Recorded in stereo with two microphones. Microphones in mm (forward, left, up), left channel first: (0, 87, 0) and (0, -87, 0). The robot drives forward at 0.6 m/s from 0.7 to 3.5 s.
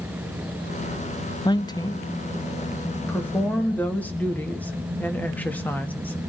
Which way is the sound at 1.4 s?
25° left (ahead or behind).